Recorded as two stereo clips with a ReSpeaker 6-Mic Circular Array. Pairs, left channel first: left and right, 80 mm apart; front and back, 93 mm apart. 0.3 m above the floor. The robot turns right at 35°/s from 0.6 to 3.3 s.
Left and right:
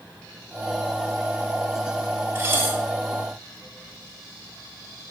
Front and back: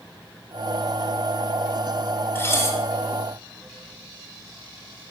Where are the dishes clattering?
45° right, 0.9 m; by 2.8 s 30° right, 0.9 m.